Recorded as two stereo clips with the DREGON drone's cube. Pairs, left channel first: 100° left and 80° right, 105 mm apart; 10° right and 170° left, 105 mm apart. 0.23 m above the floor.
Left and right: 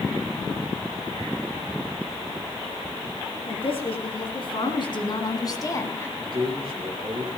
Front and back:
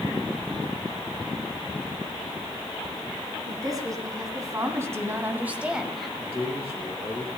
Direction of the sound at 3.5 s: 120° left.